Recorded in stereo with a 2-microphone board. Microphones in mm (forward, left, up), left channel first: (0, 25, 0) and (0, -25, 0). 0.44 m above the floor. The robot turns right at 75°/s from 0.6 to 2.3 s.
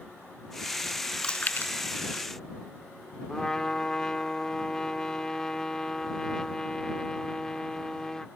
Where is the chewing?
15° left (ahead or behind); by 1.7 s 50° left (ahead or behind).